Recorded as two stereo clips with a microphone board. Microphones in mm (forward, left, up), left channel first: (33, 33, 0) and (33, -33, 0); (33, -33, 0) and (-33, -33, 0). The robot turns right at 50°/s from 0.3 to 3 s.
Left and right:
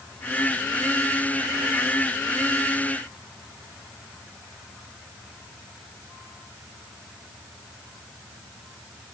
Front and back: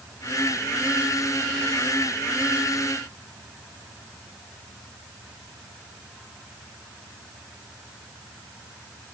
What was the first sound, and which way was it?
Only background noise.